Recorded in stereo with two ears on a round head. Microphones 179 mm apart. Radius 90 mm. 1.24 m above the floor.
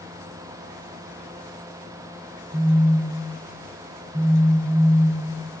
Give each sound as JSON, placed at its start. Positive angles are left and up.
{"t": 2.5, "sound": "a phone buzzing", "side_deg": -50, "distance_m": 2.0}